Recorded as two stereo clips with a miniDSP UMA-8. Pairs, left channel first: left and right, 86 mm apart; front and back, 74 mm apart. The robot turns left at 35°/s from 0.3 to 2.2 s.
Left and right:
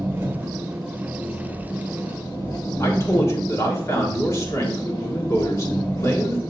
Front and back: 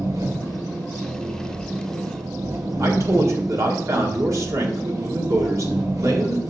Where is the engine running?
150° right, 1.6 m; by 6.5 s 140° left, 1.6 m.